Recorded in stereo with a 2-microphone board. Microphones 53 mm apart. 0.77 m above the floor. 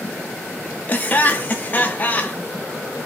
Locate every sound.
0.9 s laughter: 30° left (ahead or behind), 0.6 m